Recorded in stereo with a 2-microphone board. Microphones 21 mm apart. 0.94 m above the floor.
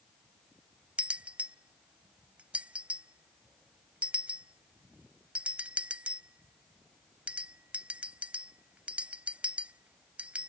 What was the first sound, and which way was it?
A bell, 85° right.